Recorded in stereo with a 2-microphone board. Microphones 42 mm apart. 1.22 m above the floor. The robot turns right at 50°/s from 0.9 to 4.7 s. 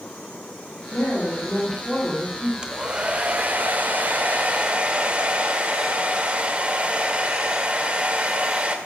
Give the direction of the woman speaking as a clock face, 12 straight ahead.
7 o'clock.